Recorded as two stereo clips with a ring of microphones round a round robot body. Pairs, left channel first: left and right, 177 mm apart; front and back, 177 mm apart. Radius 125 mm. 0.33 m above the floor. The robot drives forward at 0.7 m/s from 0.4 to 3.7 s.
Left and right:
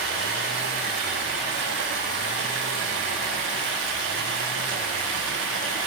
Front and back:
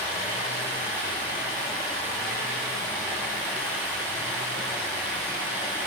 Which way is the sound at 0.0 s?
70° right.